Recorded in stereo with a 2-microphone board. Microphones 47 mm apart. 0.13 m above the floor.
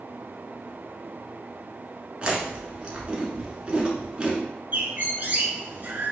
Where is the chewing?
20° right (ahead or behind), 1.3 m.